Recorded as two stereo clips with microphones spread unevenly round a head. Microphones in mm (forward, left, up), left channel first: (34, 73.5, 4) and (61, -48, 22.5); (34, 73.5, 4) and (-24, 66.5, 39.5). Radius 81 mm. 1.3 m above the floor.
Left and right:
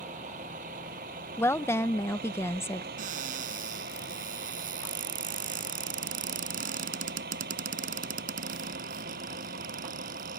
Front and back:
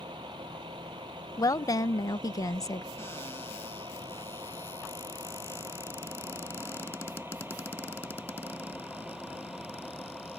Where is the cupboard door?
65° right.